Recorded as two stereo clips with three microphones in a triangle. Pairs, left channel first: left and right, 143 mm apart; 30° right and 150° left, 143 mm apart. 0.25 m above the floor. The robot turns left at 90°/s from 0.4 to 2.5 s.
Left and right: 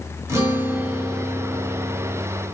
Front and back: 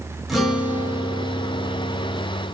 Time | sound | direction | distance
0.3 | a guitar | 125° right | 0.9 m